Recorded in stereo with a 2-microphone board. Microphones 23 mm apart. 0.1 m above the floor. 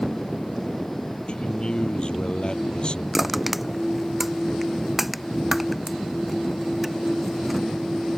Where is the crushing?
10° right (ahead or behind).